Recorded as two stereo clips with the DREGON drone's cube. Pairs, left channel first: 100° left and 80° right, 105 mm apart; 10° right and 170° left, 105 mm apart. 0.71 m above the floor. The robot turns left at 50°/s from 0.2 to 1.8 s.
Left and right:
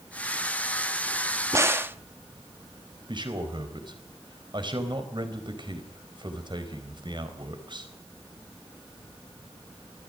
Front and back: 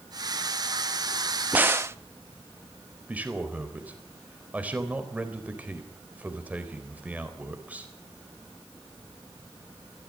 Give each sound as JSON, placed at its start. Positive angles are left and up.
{"t": 1.5, "sound": "a crack", "azimuth_deg": -120, "distance_m": 0.8}
{"t": 3.1, "sound": "a man speaking", "azimuth_deg": -115, "distance_m": 4.0}